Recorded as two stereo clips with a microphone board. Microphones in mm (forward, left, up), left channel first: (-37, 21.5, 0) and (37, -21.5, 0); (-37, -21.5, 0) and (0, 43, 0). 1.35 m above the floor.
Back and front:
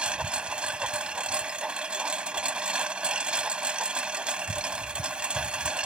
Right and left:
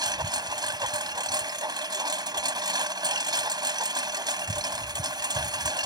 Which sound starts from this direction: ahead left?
A lawn mower, at 0.0 s.